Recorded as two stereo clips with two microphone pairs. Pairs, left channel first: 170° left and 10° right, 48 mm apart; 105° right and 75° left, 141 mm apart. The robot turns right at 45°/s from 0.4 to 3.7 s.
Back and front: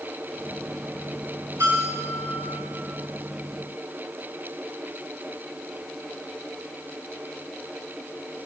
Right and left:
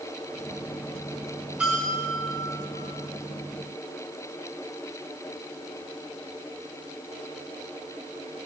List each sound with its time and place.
1.6 s a bell: 5° right, 5 m; by 2.3 s 25° left, 5 m